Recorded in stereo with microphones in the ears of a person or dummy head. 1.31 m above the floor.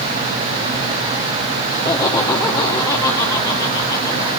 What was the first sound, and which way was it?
Laughter, 15° left (ahead or behind).